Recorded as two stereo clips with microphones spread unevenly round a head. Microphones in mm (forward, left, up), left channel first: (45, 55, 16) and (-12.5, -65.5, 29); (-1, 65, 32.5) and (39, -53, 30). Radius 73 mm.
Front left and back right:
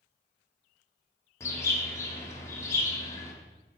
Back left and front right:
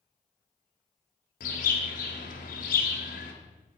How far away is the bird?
About 1.5 m.